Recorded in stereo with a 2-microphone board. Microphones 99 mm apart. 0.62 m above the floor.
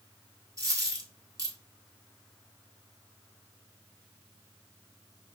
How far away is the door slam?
I don't hear a door slam.